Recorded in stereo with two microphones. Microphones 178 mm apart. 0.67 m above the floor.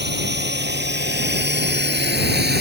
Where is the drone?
85° right; by 2.6 s 70° right (ahead or behind).